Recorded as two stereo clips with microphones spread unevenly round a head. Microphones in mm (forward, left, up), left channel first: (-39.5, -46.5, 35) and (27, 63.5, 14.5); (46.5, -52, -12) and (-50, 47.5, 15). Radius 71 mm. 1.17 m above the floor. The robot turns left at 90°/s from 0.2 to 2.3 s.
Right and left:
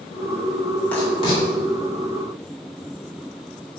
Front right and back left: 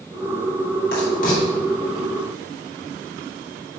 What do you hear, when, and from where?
0.9 s writing: 45° right, 3.5 m; by 1.4 s 90° right, 3.5 m